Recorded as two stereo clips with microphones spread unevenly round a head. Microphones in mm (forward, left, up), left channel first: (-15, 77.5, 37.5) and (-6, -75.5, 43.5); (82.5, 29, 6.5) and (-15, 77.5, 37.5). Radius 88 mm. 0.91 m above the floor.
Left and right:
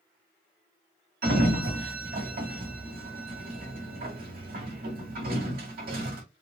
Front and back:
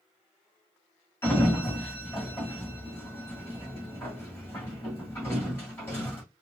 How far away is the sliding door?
About 1.7 m.